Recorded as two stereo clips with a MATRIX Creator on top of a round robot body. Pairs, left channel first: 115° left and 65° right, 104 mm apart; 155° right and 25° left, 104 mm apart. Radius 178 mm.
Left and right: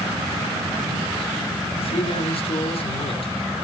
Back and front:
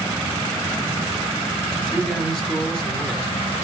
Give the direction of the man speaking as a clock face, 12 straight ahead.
8 o'clock.